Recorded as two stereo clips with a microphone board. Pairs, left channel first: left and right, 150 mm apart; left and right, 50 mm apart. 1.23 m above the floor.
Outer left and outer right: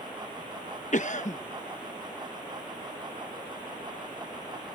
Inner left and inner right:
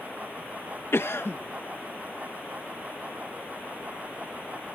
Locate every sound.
0.9 s a cough: 55° left (ahead or behind)